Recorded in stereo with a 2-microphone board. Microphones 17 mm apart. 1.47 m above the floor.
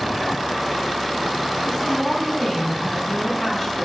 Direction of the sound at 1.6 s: 25° left (ahead or behind).